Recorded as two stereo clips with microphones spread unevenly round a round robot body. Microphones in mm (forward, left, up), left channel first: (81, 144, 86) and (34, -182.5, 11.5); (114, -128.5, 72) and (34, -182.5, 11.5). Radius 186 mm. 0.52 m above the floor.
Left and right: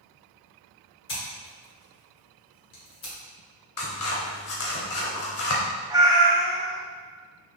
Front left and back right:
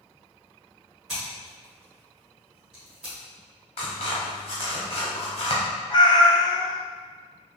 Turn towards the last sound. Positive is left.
turn(degrees=-20)